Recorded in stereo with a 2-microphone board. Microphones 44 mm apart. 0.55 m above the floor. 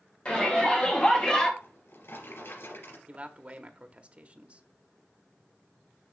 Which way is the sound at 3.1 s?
30° right (ahead or behind).